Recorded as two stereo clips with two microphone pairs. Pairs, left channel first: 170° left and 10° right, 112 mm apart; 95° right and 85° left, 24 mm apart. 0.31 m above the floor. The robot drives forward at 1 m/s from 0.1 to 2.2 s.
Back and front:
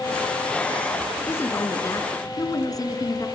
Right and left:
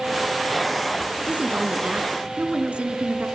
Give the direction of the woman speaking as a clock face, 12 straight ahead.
9 o'clock.